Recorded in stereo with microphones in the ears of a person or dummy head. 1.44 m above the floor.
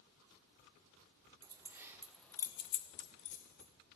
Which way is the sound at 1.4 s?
15° right (ahead or behind).